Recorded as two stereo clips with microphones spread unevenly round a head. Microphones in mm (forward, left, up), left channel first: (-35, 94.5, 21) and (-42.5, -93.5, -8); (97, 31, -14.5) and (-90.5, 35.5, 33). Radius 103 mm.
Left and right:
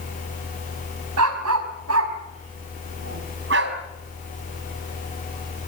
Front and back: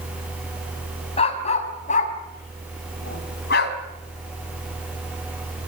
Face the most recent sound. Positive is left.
turn(degrees=-50)